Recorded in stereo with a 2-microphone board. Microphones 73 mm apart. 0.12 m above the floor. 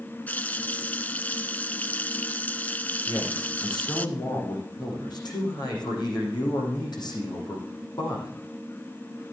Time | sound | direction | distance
0.3 | a running tap | 25° left (ahead or behind) | 0.8 m
3.1 | a man speaking | 75° left (ahead or behind) | 7.5 m